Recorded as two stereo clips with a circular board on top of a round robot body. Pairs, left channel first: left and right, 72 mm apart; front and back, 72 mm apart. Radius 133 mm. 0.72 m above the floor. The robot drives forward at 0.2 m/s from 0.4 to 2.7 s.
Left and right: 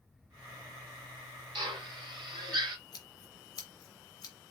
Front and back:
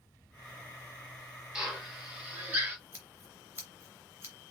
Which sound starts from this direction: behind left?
Scissors, at 2.9 s.